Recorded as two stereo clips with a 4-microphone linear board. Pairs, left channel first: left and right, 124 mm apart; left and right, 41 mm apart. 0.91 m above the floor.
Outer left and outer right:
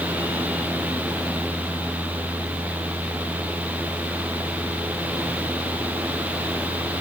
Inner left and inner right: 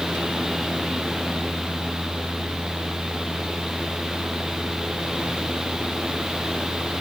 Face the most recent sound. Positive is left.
No sound to turn to.